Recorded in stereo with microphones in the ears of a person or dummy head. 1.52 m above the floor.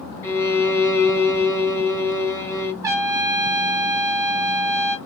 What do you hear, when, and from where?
0.2 s a violin: 15° left (ahead or behind), 0.6 m
2.8 s a trumpet: 25° right (ahead or behind), 0.6 m